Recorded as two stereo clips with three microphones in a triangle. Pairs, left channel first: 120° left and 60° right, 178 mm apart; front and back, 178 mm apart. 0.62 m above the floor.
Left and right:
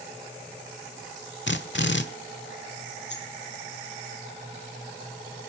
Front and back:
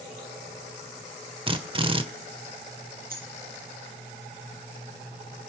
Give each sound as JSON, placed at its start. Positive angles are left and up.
{"t": 1.5, "sound": "a drill", "azimuth_deg": 120, "distance_m": 1.4}
{"t": 3.1, "sound": "a dropped coin", "azimuth_deg": 140, "distance_m": 3.5}